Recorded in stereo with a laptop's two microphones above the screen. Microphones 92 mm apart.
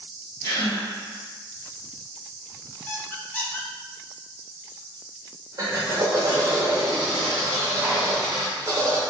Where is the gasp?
30° left (ahead or behind), 1.3 m.